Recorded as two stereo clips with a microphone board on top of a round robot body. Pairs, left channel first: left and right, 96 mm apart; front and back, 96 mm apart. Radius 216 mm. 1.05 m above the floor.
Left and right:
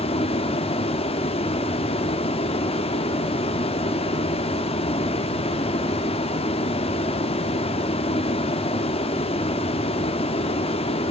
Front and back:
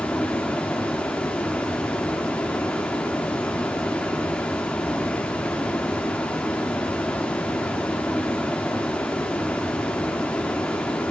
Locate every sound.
0.0 s running water: 75° left, 0.8 m